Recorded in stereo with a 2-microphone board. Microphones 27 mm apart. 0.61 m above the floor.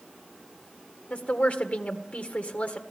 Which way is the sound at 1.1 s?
55° left (ahead or behind).